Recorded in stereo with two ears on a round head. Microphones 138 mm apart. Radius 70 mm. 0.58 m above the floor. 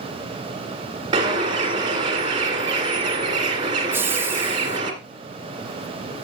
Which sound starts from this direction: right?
A bird, at 1.1 s.